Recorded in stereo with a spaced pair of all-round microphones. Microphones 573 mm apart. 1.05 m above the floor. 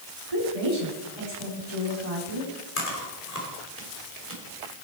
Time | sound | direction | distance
0.3 | a woman speaking | 70° right (ahead or behind) | 3.5 m
2.8 | chewing | 80° left | 3.5 m